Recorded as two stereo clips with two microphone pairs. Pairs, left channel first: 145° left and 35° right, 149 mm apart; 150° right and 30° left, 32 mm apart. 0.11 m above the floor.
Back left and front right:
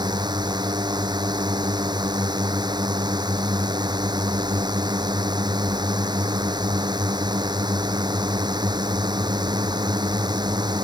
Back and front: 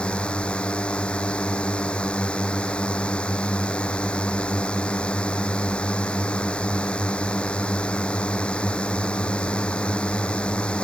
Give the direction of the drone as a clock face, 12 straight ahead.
3 o'clock.